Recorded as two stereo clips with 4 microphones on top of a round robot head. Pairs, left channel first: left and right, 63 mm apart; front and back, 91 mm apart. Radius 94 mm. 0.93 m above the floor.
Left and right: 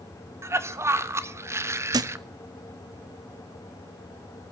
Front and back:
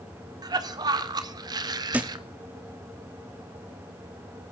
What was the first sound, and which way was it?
A cough, 135° right.